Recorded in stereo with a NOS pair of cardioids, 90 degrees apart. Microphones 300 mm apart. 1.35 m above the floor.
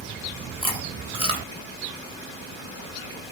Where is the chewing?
20° right, 1.0 m.